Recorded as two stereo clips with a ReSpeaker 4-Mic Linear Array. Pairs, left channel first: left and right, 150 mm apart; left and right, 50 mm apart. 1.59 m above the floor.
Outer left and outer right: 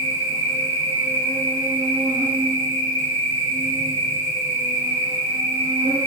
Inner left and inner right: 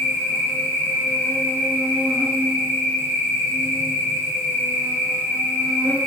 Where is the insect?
45° right (ahead or behind), 1.0 m.